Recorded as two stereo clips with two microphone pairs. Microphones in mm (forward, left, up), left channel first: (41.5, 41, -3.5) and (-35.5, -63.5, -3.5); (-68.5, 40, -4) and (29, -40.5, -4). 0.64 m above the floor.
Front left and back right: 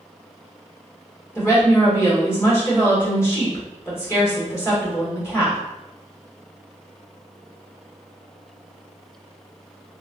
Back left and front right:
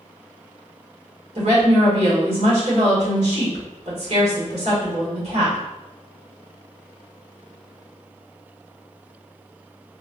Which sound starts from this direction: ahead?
A woman speaking, at 1.4 s.